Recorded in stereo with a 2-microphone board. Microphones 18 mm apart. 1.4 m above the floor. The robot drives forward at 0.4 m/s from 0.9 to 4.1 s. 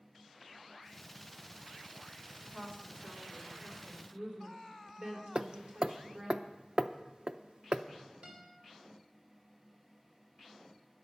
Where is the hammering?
55° right (ahead or behind), 0.6 m.